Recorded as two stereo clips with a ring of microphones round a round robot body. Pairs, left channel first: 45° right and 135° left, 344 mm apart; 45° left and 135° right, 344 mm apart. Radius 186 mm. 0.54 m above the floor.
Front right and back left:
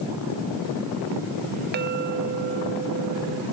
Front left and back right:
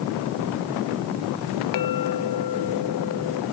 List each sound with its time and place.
1.7 s a clink: 75° left